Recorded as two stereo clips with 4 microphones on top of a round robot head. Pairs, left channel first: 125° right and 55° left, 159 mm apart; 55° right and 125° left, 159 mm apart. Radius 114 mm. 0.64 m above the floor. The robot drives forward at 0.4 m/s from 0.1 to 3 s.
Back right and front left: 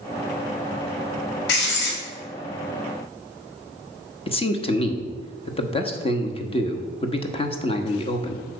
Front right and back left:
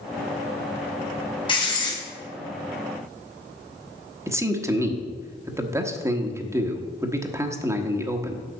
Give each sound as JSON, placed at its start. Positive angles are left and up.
{"t": 1.5, "sound": "writing", "azimuth_deg": -115, "distance_m": 2.5}
{"t": 4.3, "sound": "a man speaking", "azimuth_deg": -165, "distance_m": 1.3}